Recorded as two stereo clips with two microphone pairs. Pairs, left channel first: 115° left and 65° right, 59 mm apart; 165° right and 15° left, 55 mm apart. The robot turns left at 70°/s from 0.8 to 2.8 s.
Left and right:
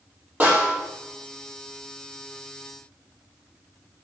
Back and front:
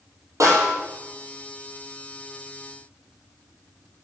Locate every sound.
0.4 s a snare drum: 5° right, 4.5 m